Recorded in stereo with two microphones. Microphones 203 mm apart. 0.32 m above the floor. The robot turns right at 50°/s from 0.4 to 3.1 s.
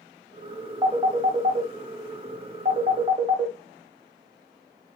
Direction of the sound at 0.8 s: 15° right (ahead or behind).